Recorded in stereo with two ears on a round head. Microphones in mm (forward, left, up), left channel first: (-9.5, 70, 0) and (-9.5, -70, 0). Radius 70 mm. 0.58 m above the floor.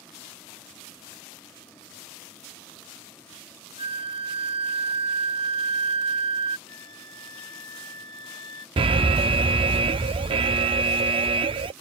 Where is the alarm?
35° right (ahead or behind).